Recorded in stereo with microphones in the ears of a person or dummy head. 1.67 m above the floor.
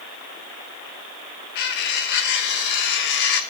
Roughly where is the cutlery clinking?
Left.